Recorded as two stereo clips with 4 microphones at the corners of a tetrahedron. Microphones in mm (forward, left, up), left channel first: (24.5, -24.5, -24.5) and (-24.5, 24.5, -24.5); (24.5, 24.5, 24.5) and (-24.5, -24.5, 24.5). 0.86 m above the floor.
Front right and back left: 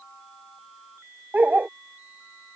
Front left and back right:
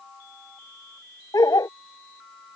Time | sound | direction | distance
1.3 | a dog barking | 65° left | ?